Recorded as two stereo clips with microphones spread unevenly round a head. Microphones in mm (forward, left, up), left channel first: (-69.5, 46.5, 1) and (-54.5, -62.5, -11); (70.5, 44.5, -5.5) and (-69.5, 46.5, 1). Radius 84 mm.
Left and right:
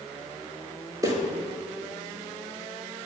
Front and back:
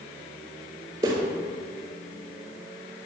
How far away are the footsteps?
About 1.6 m.